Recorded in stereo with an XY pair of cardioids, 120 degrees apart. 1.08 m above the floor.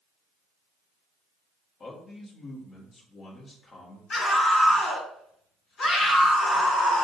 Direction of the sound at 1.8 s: 45° left.